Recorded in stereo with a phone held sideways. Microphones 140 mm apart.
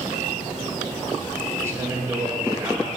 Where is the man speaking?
20° right (ahead or behind), 1.9 m.